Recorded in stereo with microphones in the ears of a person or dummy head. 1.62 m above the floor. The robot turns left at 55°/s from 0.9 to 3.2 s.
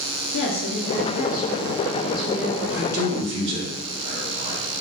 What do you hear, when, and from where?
0.3 s a woman speaking: 70° left, 0.7 m; by 2.6 s 25° right, 0.7 m
2.7 s a man speaking: 10° right (ahead or behind), 1.8 m; by 4.6 s 35° right (ahead or behind), 1.8 m